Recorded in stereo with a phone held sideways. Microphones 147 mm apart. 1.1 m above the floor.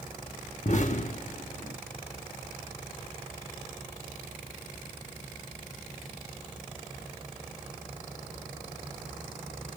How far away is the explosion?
About 0.8 m.